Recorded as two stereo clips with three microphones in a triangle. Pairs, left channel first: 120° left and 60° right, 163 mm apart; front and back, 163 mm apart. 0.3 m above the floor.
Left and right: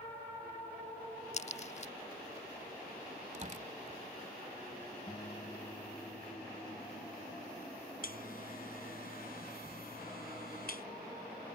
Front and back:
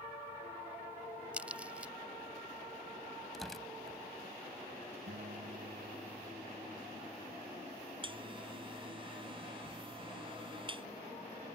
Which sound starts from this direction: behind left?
A buzzer, at 8.0 s.